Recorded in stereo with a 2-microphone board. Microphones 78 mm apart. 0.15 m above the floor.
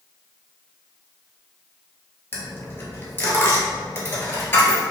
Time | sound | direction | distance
2.3 | a dropped coin | 30° left (ahead or behind) | 1.1 m